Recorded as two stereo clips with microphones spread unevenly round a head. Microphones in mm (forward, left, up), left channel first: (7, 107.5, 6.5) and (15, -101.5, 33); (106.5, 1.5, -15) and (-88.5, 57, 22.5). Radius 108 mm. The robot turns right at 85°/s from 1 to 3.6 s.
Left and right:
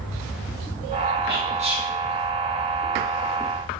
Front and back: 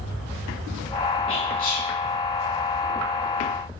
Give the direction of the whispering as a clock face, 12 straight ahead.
2 o'clock.